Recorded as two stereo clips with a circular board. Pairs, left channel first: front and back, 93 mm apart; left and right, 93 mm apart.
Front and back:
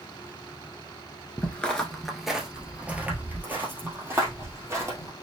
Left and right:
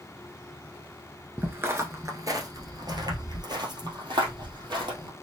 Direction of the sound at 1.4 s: 50° right.